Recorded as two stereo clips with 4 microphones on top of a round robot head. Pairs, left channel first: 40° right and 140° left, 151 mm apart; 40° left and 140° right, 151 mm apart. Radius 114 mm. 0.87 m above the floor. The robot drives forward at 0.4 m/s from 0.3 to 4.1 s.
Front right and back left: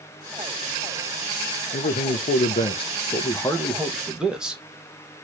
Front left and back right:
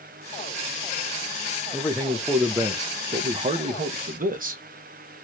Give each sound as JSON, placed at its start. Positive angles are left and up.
{"t": 1.7, "sound": "a man speaking", "azimuth_deg": -40, "distance_m": 0.8}